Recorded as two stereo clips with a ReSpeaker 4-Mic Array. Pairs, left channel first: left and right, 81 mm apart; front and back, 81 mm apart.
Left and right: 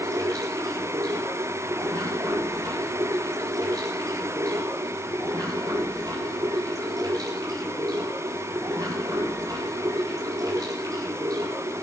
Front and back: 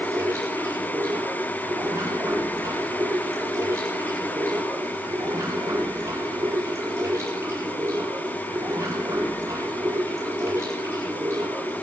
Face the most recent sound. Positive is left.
turn(degrees=-125)